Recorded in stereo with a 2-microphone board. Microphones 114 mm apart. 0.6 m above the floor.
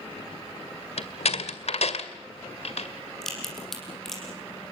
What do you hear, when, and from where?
1.0 s a door slam: 65° left (ahead or behind), 1.9 m
3.2 s a crack: 5° left (ahead or behind), 6 m